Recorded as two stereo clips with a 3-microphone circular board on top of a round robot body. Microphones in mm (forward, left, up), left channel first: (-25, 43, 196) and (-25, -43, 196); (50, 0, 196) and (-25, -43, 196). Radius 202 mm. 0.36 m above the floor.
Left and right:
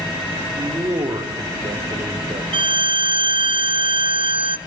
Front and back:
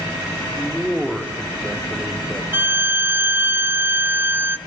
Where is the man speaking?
65° right, 2.5 m.